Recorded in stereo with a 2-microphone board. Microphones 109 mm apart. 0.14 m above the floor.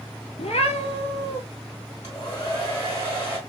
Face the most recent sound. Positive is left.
turn(degrees=40)  # may be behind; listen again after turning